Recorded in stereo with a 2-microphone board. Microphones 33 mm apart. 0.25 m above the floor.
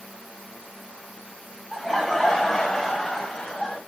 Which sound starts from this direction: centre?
Laughter, at 1.7 s.